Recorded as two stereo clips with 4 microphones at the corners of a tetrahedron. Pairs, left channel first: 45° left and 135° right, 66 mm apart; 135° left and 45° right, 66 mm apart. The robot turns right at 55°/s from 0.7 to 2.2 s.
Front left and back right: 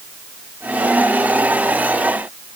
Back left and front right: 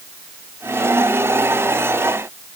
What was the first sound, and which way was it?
Only background noise.